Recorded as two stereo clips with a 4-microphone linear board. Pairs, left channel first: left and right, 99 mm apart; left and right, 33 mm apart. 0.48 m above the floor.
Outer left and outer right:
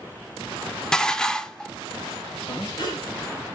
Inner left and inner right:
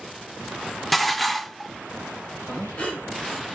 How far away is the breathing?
About 2.5 m.